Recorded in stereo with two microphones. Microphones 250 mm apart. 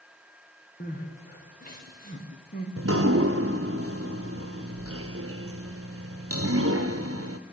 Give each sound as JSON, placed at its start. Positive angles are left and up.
{"t": 0.8, "sound": "crying", "side_deg": 35, "distance_m": 5.5}
{"t": 2.8, "sound": "dripping", "side_deg": -65, "distance_m": 1.2}